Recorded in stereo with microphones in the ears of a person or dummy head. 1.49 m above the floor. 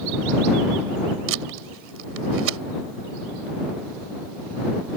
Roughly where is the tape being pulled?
Right.